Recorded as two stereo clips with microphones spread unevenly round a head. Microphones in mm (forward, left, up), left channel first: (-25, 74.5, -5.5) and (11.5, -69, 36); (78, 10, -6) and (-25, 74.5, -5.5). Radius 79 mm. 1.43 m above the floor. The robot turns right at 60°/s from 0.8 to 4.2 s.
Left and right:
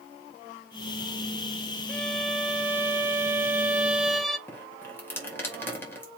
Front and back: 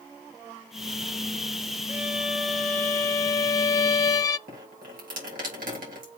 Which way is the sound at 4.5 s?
Straight behind.